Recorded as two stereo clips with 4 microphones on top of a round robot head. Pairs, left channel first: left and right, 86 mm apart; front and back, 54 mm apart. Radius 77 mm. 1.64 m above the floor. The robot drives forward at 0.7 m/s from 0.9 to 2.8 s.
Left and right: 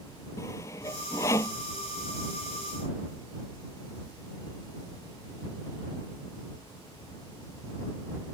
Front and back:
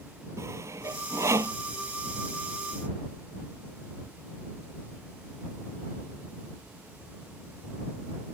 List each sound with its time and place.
0.4 s sawing: 155° left